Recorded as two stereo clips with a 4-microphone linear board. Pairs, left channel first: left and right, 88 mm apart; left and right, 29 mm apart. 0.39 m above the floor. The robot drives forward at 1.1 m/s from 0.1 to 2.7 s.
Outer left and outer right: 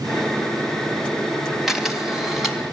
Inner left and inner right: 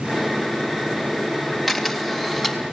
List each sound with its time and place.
1.7 s a camera shutter: 5° right (ahead or behind), 3 m